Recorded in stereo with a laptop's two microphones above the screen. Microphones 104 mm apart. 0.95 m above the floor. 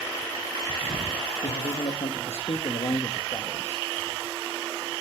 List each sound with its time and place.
1.4 s a man speaking: 65° left (ahead or behind), 1.2 m